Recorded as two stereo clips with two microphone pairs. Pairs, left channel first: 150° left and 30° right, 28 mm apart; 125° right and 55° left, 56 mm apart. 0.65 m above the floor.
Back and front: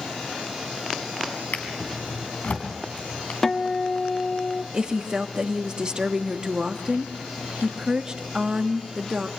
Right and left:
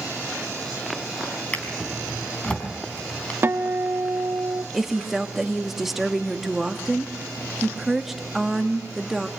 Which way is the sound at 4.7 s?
25° right.